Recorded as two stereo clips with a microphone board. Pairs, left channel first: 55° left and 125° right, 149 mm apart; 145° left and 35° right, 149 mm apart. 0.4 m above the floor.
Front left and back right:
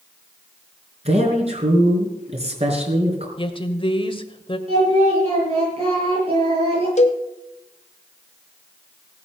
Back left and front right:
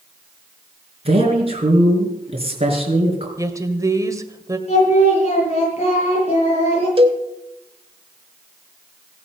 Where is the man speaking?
80° right, 4.5 m.